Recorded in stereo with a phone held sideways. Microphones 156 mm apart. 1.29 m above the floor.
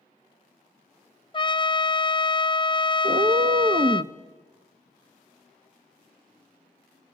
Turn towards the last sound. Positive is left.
turn(degrees=-45)  # may be behind; listen again after turning